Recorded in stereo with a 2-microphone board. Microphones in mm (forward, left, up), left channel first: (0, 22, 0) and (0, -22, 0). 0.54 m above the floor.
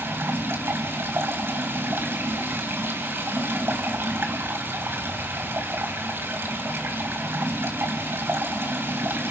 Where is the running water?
60° right (ahead or behind), 3 m.